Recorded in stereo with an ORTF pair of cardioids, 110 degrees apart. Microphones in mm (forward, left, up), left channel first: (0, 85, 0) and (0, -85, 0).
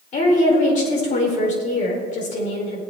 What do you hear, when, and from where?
0.1 s a woman speaking: 50° left, 4.5 m